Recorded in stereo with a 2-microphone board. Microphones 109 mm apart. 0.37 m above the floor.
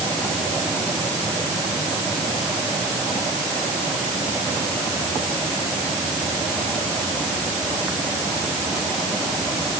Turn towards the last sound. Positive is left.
No sound to turn to.